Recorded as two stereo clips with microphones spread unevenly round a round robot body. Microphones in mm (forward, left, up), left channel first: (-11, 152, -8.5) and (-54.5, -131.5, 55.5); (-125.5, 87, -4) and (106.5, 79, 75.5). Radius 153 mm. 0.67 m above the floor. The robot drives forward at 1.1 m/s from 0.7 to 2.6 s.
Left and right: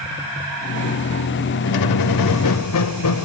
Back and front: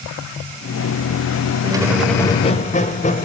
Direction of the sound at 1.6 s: 70° left.